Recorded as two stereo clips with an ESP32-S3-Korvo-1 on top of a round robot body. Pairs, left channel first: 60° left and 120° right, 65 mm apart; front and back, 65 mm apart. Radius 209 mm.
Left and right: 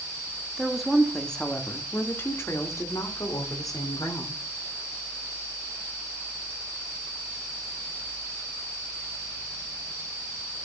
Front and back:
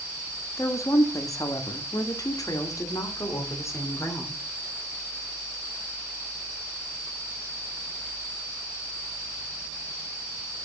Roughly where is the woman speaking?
Ahead right.